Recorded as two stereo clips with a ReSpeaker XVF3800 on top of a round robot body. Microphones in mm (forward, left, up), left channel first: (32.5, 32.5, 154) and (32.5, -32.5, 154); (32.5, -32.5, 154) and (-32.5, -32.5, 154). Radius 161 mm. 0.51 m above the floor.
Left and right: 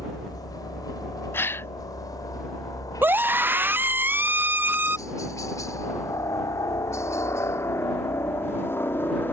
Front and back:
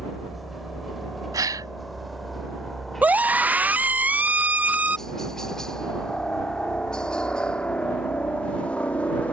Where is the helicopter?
90° left; by 9.3 s 55° left.